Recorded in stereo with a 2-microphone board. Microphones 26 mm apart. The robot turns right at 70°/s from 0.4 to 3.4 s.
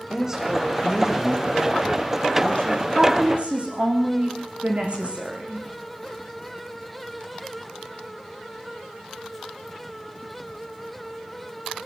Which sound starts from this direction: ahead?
A woman speaking, at 0.1 s.